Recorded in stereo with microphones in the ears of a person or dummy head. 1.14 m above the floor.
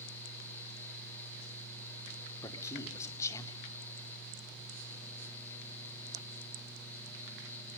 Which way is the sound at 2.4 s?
15° left (ahead or behind).